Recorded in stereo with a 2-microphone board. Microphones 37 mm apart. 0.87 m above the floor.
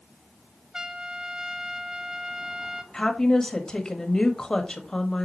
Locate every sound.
0.7 s a trumpet: 15° right (ahead or behind), 0.6 m
2.9 s a woman speaking: 20° left (ahead or behind), 1.5 m